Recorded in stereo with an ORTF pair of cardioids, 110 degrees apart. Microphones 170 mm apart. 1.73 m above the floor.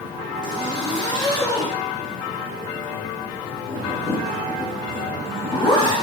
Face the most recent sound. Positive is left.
turn(degrees=25)